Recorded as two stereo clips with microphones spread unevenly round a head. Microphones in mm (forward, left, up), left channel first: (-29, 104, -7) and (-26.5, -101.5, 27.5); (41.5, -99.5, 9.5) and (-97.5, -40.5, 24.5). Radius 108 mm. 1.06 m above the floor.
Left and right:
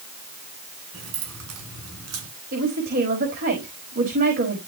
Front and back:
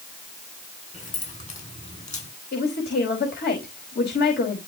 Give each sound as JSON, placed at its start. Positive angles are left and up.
{"t": 0.9, "sound": "keys jangling", "azimuth_deg": -65, "distance_m": 8.5}
{"t": 2.5, "sound": "a woman speaking", "azimuth_deg": -35, "distance_m": 5.5}